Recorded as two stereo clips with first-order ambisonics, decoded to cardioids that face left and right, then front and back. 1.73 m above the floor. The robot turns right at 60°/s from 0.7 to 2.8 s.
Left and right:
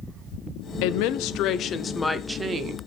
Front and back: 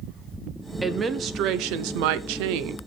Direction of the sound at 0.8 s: 95° left.